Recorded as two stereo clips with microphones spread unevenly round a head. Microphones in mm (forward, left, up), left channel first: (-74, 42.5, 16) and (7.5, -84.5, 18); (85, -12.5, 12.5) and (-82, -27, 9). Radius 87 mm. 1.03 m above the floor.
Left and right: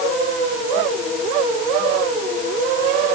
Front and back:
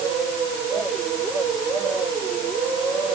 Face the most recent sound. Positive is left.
No sound to turn to.